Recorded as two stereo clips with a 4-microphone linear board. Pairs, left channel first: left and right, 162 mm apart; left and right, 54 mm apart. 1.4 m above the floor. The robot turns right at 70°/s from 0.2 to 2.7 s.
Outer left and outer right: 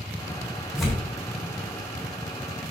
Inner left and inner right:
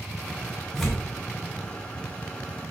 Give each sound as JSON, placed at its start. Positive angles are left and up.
{"t": 0.8, "sound": "tearing paper", "side_deg": -5, "distance_m": 3.0}